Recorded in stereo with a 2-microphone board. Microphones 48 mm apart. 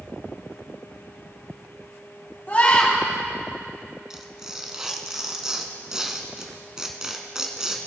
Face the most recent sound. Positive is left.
turn(degrees=-15)  # may be behind; listen again after turning